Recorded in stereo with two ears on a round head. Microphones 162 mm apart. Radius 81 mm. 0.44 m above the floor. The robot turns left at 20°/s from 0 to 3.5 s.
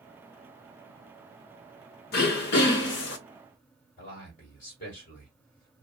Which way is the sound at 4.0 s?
50° left (ahead or behind).